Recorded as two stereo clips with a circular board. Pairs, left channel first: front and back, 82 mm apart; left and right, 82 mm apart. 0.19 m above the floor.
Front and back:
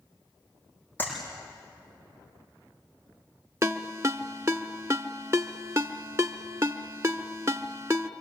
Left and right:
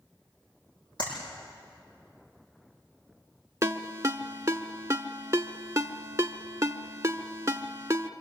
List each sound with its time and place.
1.0 s a clap: 65° left, 8.5 m
3.6 s a ringtone: 135° right, 0.8 m